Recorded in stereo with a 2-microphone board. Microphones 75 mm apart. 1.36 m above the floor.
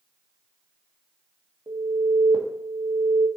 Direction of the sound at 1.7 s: 70° right (ahead or behind).